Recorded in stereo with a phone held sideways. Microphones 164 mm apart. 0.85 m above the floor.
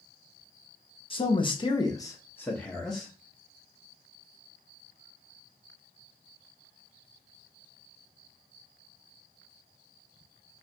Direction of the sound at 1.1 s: 35° left (ahead or behind).